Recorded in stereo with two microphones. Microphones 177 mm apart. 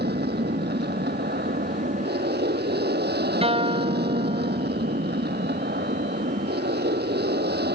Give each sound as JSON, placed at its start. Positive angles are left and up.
{"t": 0.0, "sound": "an aircraft", "side_deg": -70}
{"t": 3.4, "sound": "a guitar", "side_deg": -35}